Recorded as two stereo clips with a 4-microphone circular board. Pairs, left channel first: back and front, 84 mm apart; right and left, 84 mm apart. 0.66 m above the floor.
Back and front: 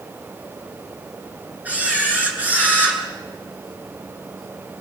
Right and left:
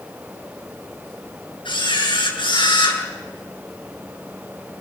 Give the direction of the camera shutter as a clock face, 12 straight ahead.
2 o'clock.